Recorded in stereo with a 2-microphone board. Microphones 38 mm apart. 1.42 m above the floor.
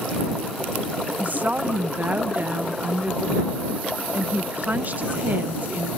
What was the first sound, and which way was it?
A woman speaking, 45° right (ahead or behind).